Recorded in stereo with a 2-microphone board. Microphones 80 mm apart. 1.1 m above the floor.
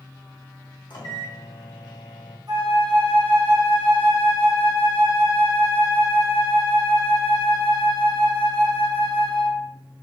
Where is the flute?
60° right (ahead or behind), 2 m.